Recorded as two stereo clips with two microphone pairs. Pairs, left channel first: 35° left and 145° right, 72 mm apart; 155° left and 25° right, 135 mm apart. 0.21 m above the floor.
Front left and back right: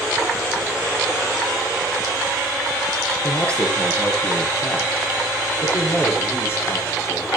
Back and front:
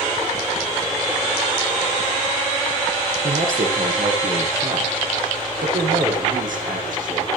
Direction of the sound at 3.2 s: 40° right.